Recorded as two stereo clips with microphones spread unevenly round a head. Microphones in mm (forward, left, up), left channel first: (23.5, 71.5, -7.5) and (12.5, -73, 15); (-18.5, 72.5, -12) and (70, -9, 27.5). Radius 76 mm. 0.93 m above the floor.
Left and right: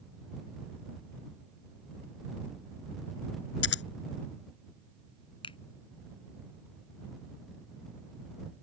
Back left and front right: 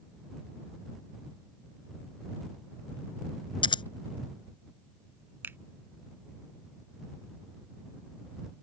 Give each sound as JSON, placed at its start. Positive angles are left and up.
{"t": 3.6, "sound": "scissors", "azimuth_deg": 85}
{"t": 5.4, "sound": "a finger snap", "azimuth_deg": 30}